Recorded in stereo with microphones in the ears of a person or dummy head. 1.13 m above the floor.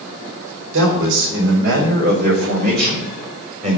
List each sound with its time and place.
0.7 s a man speaking: 70° right (ahead or behind), 5 m; by 3.8 s 35° right (ahead or behind), 5 m